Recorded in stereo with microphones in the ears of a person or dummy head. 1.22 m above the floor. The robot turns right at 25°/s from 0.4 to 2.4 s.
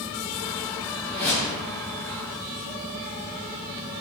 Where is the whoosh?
5° left (ahead or behind), 0.6 m; by 1.6 s 20° left (ahead or behind), 0.6 m.